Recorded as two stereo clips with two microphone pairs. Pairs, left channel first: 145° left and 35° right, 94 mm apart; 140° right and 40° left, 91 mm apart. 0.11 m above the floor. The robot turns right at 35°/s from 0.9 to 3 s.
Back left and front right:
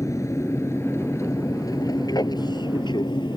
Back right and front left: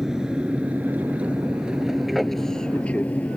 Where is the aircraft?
120° left; by 3.4 s 145° left.